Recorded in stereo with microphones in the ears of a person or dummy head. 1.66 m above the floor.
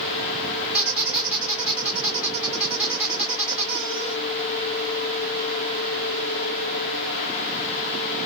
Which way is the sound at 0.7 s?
5° right (ahead or behind).